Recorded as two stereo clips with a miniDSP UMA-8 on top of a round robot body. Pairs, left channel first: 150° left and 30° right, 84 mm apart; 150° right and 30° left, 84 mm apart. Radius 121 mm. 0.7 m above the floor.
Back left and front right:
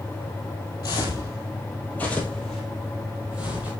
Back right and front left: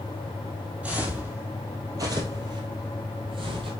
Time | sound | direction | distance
0.8 | footsteps | 105° left | 1.5 m